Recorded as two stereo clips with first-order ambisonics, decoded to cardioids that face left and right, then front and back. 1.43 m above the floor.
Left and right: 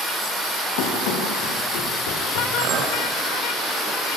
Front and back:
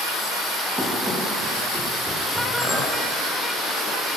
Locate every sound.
0.8 s running footsteps: 95° left, 9.5 m
2.6 s a clink: 110° right, 3.5 m